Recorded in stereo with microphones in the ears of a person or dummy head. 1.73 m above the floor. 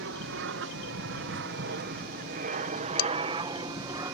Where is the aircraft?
60° right (ahead or behind); by 4.1 s 20° right (ahead or behind).